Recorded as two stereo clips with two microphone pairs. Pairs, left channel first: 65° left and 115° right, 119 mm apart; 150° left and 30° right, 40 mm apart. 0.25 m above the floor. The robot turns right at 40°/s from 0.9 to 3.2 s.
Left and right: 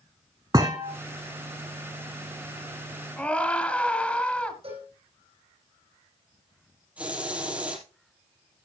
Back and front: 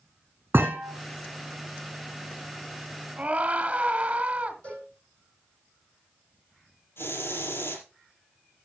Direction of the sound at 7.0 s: 165° left.